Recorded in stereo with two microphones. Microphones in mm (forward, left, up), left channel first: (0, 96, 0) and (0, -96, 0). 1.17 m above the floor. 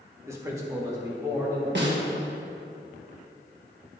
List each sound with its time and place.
0.3 s a man speaking: 15° right (ahead or behind), 1.2 m
1.8 s a snare drum: 65° right (ahead or behind), 1.4 m